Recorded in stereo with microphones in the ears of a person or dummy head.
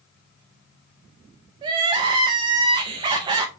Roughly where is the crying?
Right.